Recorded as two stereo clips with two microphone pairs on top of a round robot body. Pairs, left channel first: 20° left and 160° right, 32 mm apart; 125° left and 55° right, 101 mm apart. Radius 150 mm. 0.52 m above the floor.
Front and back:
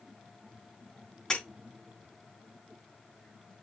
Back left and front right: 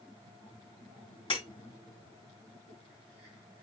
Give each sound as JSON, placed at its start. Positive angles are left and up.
{"t": 1.3, "sound": "breaking glass", "azimuth_deg": 90, "distance_m": 5.5}